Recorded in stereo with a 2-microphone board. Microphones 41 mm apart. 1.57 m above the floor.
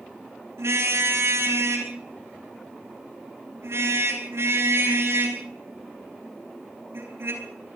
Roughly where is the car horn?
Right.